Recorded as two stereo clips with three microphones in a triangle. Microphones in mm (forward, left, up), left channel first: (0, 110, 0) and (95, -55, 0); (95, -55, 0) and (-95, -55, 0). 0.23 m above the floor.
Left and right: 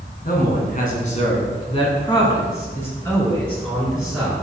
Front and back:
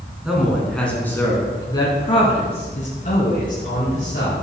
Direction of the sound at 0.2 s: 95° left.